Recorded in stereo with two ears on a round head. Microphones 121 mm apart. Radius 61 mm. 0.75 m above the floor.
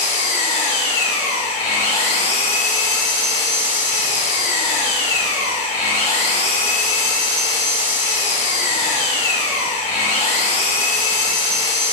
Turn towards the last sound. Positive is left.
turn(degrees=45)  # may be behind; listen again after turning